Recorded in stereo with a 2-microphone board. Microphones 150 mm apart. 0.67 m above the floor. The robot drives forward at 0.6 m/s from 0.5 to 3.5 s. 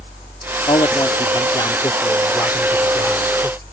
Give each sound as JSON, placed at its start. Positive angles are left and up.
{"t": 0.7, "sound": "a man speaking", "side_deg": 35}